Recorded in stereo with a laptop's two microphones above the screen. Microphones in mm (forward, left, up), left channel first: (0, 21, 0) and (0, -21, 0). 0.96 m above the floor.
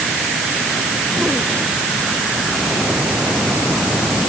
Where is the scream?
I don't hear a scream.